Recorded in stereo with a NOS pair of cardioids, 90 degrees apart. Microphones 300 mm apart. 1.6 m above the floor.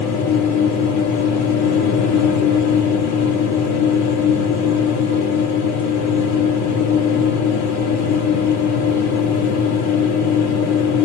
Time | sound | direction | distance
0.0 | a machine running | 70° left | 1.1 m